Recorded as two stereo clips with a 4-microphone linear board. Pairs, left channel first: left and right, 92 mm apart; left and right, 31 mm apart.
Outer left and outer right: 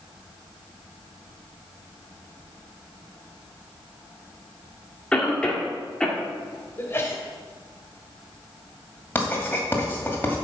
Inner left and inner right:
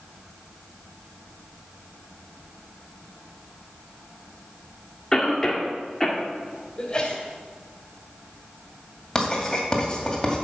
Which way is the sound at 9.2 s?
20° left (ahead or behind).